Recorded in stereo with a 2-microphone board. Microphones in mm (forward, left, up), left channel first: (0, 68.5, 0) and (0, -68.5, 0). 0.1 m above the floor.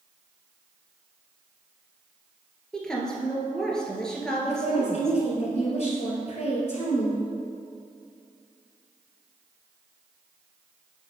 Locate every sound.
2.7 s a woman speaking: 5° left (ahead or behind), 1.4 m
4.5 s a woman speaking: 50° left (ahead or behind), 2.5 m